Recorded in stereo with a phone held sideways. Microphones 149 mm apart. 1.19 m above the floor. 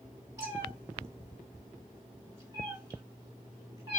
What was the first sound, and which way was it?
A cat meowing, 25° right (ahead or behind).